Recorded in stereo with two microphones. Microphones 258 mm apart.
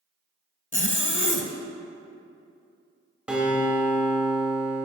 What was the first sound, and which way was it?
A zipper, 50° left (ahead or behind).